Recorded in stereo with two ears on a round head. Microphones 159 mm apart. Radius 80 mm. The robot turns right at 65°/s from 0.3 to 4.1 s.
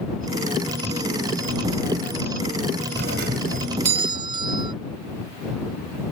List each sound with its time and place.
3.0 s a doorbell: 105° right; by 4.7 s 30° right